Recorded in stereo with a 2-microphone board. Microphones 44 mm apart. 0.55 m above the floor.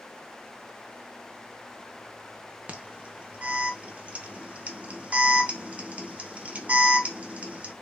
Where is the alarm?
35° right (ahead or behind), 0.7 m.